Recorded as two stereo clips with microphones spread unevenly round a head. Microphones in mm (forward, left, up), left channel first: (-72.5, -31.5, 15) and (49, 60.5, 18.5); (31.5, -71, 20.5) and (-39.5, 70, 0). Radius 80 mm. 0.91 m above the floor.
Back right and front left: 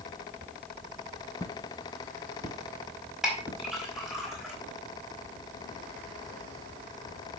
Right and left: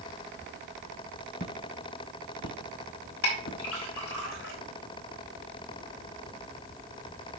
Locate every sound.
1.4 s footsteps: 75° right, 1.5 m; by 3.6 s 45° right, 3 m
3.2 s a clink: 50° right, 4.5 m